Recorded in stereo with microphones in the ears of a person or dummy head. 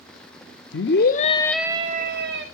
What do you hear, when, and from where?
0.7 s a scream: 60° left (ahead or behind), 1.0 m; by 2.5 s 55° right (ahead or behind), 1.1 m